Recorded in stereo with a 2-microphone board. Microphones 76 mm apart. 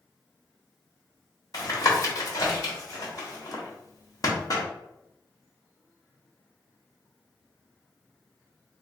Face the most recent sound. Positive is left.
turn(degrees=50)  # may be behind; listen again after turning